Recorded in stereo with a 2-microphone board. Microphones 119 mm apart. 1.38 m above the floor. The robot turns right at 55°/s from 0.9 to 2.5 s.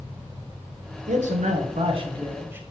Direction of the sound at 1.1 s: 95° right.